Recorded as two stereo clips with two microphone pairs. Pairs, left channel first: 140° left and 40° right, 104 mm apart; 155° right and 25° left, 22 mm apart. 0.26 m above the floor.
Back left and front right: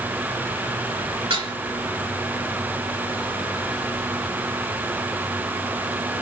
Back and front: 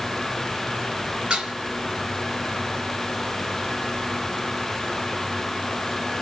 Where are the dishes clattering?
15° right, 2.5 m.